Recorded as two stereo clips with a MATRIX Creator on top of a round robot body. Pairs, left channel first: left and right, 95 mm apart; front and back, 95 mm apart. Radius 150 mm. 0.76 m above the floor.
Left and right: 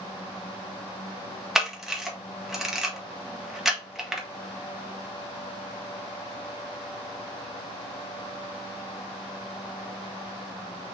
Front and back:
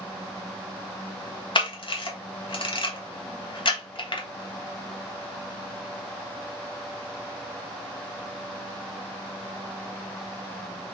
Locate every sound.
1.6 s a camera shutter: 5° right, 1.6 m